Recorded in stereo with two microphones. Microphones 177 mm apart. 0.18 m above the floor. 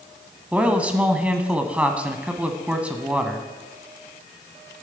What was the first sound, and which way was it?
A man speaking, 10° right (ahead or behind).